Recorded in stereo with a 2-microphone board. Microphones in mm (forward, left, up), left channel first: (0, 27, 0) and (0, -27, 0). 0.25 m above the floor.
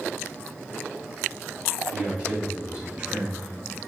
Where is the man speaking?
20° right (ahead or behind), 1.8 m.